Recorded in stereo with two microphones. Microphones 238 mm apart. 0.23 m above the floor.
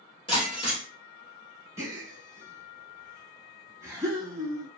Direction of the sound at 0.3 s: 20° left (ahead or behind).